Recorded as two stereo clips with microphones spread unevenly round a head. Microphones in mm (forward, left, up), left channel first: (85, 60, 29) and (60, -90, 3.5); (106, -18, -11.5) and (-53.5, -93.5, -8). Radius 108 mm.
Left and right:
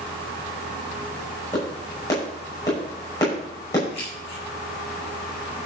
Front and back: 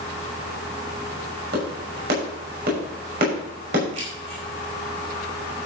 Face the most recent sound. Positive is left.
turn(degrees=145)